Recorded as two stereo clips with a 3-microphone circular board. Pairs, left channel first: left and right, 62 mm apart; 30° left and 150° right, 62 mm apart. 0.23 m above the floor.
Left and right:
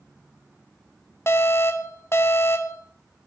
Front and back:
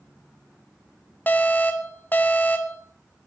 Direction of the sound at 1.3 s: 75° left.